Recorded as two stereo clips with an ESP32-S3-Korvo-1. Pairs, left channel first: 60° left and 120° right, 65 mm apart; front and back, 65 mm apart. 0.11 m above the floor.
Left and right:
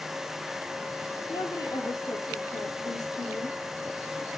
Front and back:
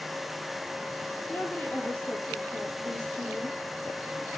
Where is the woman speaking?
65° left, 3.5 m; by 3.6 s 80° left, 4.5 m.